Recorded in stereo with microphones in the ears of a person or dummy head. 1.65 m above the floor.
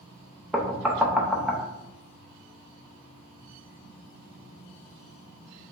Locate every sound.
0.5 s knocking: 5° right (ahead or behind), 0.5 m